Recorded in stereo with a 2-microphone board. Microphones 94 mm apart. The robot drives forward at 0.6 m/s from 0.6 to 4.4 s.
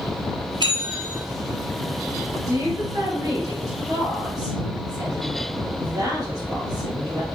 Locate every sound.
0.6 s a bell: 50° right (ahead or behind), 0.9 m; by 1.2 s 40° right (ahead or behind), 1.1 m
2.5 s a woman speaking: 40° right (ahead or behind), 1.8 m